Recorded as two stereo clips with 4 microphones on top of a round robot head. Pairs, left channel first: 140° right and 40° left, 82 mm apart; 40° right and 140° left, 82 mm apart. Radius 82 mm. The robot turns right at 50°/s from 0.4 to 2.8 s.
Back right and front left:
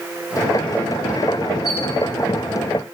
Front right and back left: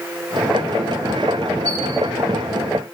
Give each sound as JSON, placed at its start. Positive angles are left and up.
{"t": 1.6, "sound": "a squeak", "azimuth_deg": 40, "distance_m": 2.5}